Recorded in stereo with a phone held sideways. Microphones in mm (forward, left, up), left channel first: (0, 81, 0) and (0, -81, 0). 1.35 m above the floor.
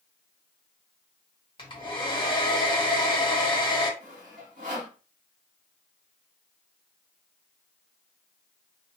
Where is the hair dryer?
30° left (ahead or behind), 1.4 m.